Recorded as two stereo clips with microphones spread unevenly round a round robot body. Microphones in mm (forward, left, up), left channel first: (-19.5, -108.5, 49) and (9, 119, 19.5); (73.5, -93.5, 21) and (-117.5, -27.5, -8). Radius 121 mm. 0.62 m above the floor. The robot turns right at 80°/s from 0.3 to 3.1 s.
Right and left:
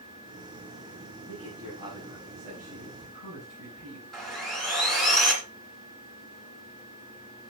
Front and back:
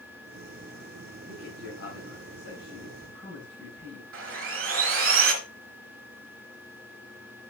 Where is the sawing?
175° left, 2 m.